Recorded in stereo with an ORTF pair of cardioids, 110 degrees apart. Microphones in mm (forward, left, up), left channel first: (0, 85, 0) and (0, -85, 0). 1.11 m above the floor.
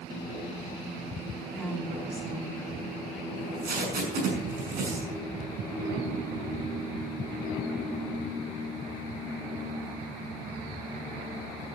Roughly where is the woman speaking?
Ahead.